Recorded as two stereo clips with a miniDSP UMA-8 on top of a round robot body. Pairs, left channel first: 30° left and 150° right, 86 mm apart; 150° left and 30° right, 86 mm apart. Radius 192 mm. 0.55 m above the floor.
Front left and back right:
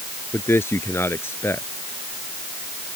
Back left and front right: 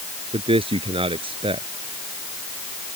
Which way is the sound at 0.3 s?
35° right.